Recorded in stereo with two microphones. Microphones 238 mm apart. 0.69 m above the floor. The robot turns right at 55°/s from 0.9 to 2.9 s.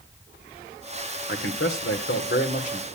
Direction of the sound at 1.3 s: 70° left.